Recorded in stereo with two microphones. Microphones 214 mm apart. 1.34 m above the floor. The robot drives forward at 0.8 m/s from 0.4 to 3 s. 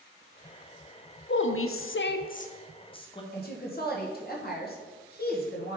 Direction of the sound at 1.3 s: 55° left (ahead or behind).